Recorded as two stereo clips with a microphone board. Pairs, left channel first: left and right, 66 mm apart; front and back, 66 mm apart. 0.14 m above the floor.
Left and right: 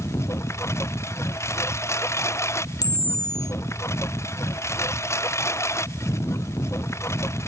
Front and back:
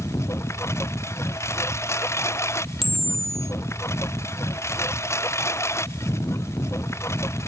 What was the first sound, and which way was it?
A lawn mower, 45° left.